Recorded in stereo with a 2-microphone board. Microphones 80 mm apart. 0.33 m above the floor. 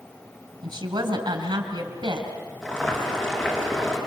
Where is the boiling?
5° left (ahead or behind), 5 m.